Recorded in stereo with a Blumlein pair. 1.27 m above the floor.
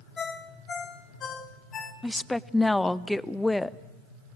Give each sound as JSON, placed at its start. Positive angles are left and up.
{"t": 0.2, "sound": "a ringtone", "azimuth_deg": 25, "distance_m": 1.6}
{"t": 2.0, "sound": "a woman speaking", "azimuth_deg": 5, "distance_m": 0.6}